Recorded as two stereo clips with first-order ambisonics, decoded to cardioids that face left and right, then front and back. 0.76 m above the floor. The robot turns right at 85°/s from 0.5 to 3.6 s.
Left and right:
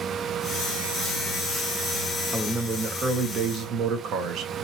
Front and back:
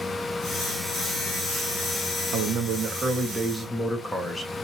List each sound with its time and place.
2.3 s a man speaking: straight behind, 0.7 m; by 4.5 s 70° right, 0.7 m